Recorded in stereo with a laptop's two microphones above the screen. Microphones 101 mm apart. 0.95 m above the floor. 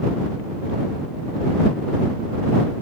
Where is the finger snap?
I don't hear a finger snap.